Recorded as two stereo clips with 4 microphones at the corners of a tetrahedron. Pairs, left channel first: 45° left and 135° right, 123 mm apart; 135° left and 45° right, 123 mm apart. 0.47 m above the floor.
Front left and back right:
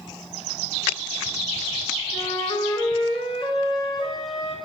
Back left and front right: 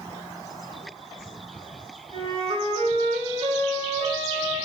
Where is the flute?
5° right, 0.8 m.